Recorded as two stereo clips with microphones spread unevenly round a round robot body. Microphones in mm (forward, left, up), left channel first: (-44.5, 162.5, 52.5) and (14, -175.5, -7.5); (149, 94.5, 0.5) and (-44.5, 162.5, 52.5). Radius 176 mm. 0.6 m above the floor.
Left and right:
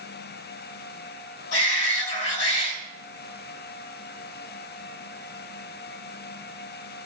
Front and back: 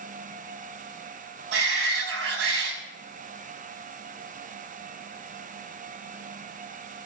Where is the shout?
150° left, 5.5 m.